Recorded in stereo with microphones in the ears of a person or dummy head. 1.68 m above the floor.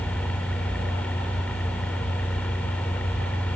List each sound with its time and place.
0.0 s a fan: 5° left (ahead or behind)